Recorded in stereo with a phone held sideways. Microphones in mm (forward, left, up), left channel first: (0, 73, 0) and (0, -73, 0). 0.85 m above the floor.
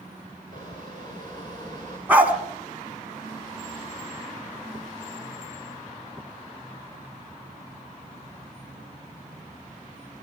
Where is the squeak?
30° left (ahead or behind), 9.5 m.